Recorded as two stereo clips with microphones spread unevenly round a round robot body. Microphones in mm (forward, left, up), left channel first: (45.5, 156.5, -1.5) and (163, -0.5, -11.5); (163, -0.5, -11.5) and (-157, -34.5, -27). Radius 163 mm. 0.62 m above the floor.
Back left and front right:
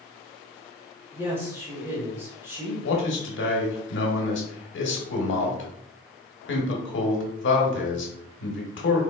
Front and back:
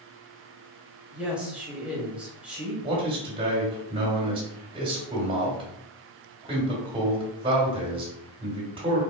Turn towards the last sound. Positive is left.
turn(degrees=115)